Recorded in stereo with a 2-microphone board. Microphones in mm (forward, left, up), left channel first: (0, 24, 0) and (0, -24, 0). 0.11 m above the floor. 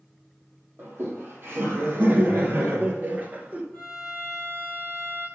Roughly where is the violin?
Centre.